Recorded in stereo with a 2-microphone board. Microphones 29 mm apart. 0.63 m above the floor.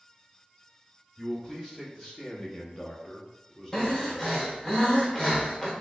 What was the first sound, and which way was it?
A man speaking, 20° left (ahead or behind).